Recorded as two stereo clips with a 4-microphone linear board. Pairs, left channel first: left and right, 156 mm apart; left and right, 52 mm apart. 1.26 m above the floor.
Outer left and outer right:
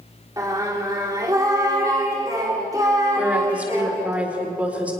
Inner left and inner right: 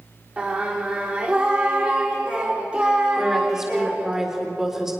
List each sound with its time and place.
0.4 s singing: 20° right (ahead or behind), 3.5 m
3.2 s a woman speaking: 10° right (ahead or behind), 4.5 m